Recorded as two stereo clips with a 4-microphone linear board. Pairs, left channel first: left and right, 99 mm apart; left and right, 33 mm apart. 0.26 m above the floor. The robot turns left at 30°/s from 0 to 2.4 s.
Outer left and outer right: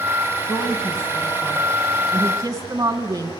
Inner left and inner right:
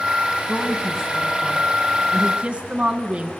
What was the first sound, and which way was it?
A woman speaking, 5° left.